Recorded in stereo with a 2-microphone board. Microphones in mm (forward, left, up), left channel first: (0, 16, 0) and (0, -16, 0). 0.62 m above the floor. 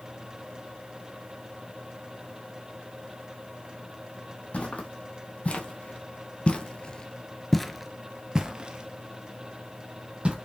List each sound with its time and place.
4.5 s footsteps: 45° left (ahead or behind), 1.7 m; by 10.3 s 40° right (ahead or behind), 1.6 m